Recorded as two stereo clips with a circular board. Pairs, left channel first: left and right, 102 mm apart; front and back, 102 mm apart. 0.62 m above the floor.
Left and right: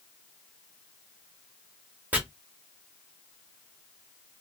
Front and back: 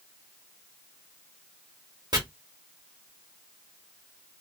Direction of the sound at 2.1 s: 155° right.